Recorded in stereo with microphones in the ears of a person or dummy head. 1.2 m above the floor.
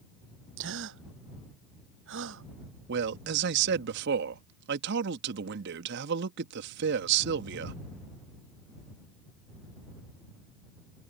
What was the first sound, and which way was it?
A gasp, 75° right (ahead or behind).